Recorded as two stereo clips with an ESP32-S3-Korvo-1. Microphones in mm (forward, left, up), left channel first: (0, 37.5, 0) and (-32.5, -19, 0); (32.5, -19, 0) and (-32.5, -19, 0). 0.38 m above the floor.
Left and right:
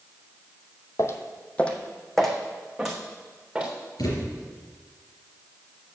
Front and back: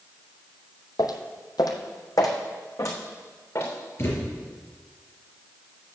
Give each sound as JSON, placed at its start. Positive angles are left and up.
{"t": 1.0, "sound": "footsteps", "azimuth_deg": 25, "distance_m": 0.9}
{"t": 4.0, "sound": "a thud", "azimuth_deg": 55, "distance_m": 3.5}